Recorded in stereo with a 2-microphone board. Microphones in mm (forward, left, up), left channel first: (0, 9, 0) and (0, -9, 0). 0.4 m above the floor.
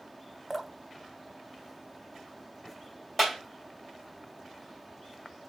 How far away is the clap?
About 2 m.